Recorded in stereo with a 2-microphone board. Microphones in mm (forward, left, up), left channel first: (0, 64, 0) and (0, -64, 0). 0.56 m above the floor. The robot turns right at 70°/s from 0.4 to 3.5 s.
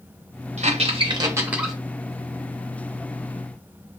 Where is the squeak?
60° right (ahead or behind), 0.7 m; by 1.8 s 5° left (ahead or behind), 0.7 m.